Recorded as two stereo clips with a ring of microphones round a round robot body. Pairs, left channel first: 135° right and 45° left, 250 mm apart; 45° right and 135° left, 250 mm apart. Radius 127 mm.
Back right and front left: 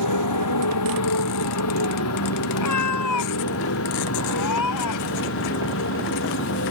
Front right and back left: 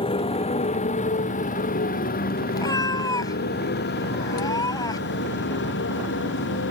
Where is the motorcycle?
115° right; by 6.7 s 90° right.